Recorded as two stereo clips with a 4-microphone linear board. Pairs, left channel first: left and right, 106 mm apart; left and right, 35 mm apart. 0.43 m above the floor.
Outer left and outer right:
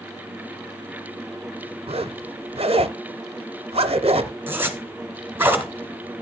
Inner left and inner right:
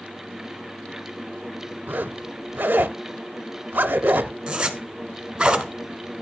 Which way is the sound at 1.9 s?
65° right (ahead or behind).